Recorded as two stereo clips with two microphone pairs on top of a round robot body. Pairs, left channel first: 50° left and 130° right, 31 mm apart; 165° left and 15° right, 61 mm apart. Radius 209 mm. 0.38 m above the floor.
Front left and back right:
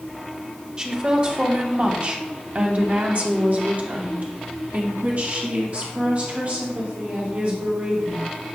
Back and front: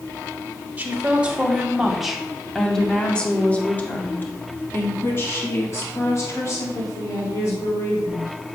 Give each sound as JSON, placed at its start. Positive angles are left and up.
{"t": 0.8, "sound": "a woman speaking", "azimuth_deg": -80, "distance_m": 2.0}